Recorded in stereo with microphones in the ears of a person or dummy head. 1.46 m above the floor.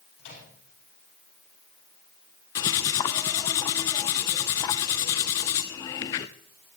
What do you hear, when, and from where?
0.2 s a microwave: 70° left (ahead or behind), 9.5 m
2.5 s cutlery clinking: 20° left (ahead or behind), 0.5 m